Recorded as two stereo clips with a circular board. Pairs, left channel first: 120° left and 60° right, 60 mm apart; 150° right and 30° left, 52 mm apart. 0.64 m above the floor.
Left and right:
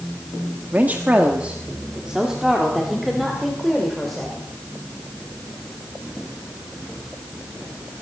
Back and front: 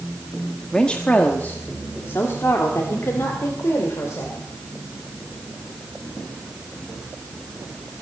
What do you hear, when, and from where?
0.7 s a woman speaking: 90° right, 1.3 m; by 4.5 s 155° right, 3 m